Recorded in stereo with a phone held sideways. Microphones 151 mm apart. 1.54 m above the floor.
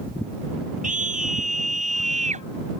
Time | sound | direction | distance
0.8 | a scream | 65° right (ahead or behind) | ?